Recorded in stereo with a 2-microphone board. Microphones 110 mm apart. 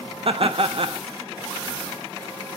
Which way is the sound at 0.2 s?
55° right (ahead or behind).